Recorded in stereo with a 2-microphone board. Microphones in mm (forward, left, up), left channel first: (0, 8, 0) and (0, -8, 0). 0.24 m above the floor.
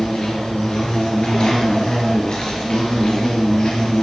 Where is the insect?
55° left (ahead or behind), 6.5 m.